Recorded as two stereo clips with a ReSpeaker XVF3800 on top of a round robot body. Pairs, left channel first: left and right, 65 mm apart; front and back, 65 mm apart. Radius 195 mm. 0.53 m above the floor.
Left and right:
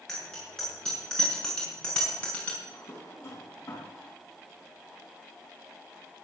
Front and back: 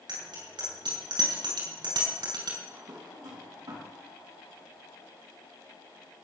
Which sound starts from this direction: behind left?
A drawer, at 2.6 s.